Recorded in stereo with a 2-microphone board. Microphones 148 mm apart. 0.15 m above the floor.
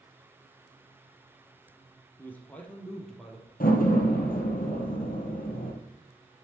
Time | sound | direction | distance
2.2 | a man speaking | 15° left (ahead or behind) | 3 m
3.6 | a door slam | 70° left (ahead or behind) | 2.5 m